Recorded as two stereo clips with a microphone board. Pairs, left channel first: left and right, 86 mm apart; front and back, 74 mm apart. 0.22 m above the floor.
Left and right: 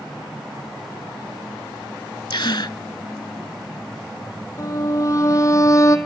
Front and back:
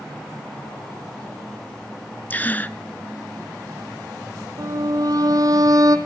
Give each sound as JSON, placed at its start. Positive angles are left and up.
{"t": 2.3, "sound": "a gasp", "azimuth_deg": 65, "distance_m": 0.5}
{"t": 4.6, "sound": "a violin", "azimuth_deg": 140, "distance_m": 1.5}